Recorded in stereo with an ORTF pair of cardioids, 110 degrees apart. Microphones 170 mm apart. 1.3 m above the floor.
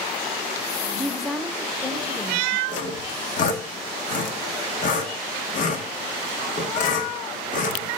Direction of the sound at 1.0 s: Straight ahead.